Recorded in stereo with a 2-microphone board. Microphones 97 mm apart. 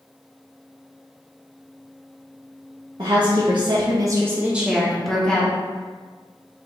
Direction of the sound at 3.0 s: 55° right (ahead or behind).